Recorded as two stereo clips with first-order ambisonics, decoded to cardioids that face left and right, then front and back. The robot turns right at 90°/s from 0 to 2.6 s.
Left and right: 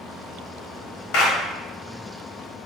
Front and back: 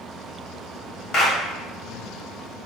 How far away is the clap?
About 1.3 m.